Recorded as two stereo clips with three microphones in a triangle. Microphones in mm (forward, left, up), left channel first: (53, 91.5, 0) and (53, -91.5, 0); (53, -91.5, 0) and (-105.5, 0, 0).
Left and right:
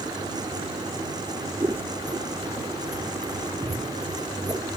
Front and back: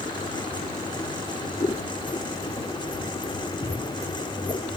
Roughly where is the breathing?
No breathing in this recording.